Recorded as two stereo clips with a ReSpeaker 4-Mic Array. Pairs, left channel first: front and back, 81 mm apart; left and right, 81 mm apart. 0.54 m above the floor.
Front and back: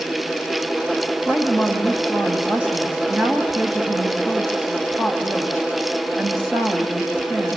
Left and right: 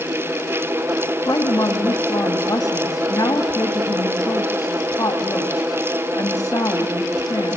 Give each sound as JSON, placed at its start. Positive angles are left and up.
{"t": 1.2, "sound": "a woman speaking", "azimuth_deg": 115, "distance_m": 2.5}